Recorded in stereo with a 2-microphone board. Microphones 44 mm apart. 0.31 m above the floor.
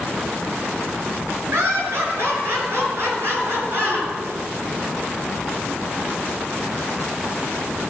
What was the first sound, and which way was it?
Laughter, 65° right (ahead or behind).